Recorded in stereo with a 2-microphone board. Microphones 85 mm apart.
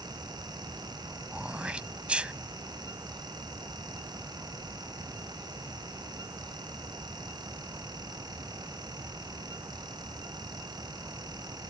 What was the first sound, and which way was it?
Throat clearing, 15° right (ahead or behind).